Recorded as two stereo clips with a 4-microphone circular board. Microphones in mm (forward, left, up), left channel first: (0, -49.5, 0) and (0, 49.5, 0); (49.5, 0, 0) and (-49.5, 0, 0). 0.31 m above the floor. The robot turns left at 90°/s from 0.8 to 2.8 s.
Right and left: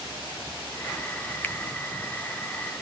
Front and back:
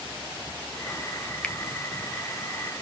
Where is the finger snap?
60° right, 0.8 m; by 1.6 s 65° right, 0.8 m.